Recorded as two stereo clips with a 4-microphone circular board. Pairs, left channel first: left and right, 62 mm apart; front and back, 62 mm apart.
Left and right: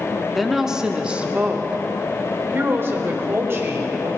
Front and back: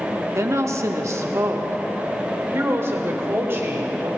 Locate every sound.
0.3 s a woman speaking: straight behind, 1.0 m; by 4.1 s 130° right, 3 m